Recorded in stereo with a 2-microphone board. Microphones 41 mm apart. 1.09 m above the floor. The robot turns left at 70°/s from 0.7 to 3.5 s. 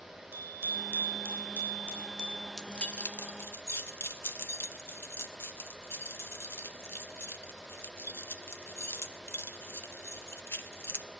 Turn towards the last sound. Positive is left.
turn(degrees=80)